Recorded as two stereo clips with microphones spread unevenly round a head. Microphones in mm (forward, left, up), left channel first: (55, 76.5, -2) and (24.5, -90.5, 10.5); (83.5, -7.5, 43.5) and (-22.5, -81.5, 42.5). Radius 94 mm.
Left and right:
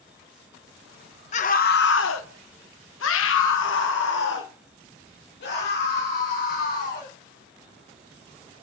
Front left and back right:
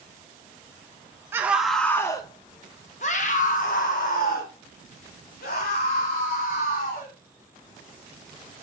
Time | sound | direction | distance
1.3 | a scream | 140° left | 0.8 m